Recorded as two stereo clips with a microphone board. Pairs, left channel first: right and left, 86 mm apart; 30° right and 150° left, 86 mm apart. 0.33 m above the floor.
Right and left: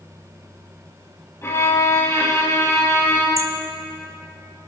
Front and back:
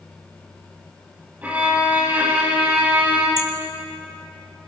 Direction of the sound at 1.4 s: 140° right.